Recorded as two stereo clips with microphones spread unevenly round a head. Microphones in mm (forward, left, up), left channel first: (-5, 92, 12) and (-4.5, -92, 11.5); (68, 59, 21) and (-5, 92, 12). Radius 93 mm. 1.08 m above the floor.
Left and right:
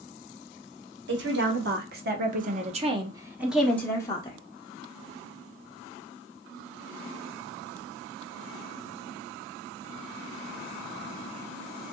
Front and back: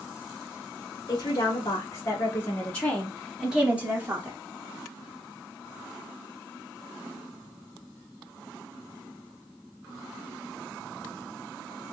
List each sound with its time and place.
1.1 s a woman speaking: 80° right, 1.4 m; by 4.4 s 135° left, 0.8 m